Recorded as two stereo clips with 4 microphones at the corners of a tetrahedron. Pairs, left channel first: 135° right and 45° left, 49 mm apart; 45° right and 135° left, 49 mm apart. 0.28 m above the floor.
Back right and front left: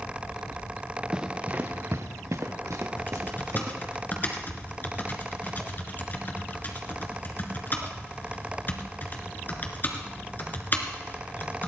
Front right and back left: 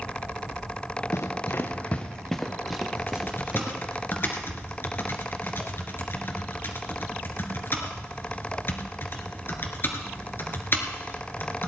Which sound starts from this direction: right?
Typing on a keyboard, at 3.0 s.